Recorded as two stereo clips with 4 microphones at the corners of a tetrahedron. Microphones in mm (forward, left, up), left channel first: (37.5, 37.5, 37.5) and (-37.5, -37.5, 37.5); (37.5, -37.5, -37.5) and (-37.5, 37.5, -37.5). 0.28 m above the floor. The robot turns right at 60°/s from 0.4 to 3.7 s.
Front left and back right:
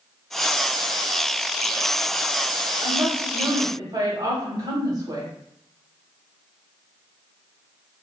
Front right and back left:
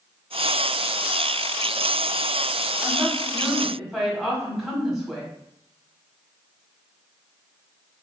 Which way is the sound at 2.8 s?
170° left.